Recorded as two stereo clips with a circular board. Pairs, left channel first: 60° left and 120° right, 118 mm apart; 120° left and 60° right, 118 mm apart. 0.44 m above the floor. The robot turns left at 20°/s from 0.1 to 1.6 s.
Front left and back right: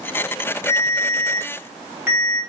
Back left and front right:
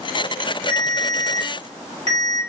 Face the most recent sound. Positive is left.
turn(degrees=-50)